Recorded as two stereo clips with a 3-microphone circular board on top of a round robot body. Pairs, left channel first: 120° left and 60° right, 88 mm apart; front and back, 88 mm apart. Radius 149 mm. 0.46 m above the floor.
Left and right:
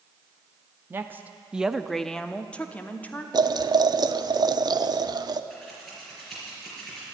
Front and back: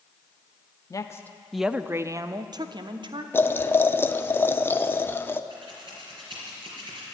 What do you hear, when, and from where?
0.9 s a woman speaking: 10° right, 0.8 m; by 3.2 s 170° right, 1.4 m
3.3 s boiling: 55° right, 0.8 m
5.5 s scissors: 150° right, 4.5 m